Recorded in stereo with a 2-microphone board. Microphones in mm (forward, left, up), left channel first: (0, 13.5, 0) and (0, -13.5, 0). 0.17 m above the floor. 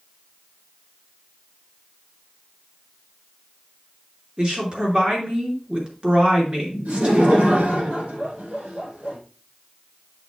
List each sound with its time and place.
4.4 s a woman speaking: 40° right (ahead or behind), 3 m
6.8 s laughter: 75° right (ahead or behind), 5.5 m